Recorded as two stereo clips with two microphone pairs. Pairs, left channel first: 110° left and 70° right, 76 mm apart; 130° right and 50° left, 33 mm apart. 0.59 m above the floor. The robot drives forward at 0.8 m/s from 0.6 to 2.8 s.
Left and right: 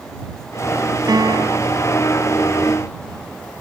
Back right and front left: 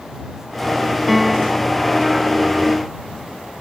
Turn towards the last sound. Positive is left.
turn(degrees=-55)